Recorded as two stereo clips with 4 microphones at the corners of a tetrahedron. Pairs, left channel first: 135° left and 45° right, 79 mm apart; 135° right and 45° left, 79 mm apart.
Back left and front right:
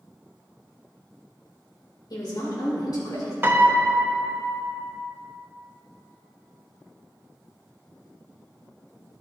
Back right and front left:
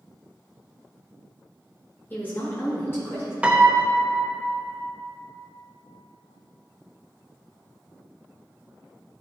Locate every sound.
2.1 s a woman speaking: 160° left, 2.5 m; by 3.3 s 170° left, 3.5 m
3.4 s a piano: 20° right, 0.7 m